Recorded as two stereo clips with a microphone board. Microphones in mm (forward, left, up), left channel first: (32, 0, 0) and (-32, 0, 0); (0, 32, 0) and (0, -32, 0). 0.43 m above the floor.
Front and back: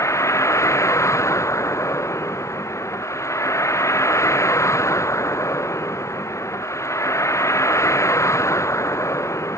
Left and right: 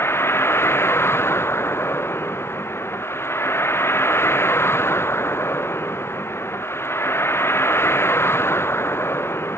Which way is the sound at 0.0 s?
40° left.